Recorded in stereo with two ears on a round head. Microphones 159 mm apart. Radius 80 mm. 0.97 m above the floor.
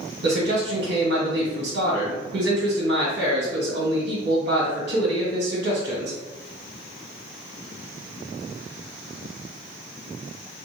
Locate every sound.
0.2 s a man speaking: 65° right (ahead or behind), 1.6 m